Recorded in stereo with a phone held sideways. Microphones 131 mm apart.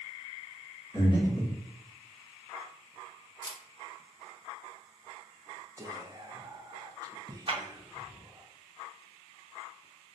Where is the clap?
40° right (ahead or behind), 0.8 m.